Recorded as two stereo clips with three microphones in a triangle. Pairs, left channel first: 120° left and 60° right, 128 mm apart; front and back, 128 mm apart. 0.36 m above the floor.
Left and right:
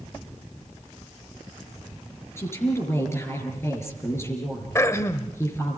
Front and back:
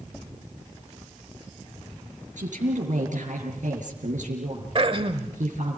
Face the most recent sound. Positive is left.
turn(degrees=180)